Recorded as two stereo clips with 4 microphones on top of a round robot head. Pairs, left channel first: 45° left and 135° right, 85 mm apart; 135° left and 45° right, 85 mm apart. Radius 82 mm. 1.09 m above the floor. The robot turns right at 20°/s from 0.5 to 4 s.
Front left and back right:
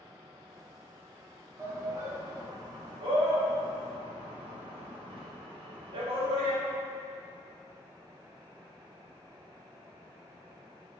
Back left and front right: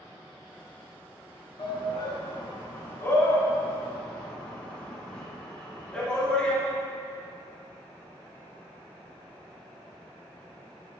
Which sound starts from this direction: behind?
A shout, at 1.6 s.